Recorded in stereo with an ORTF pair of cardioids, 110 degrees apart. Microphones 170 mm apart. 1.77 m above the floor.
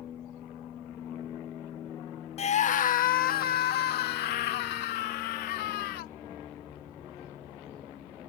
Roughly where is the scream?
Ahead left.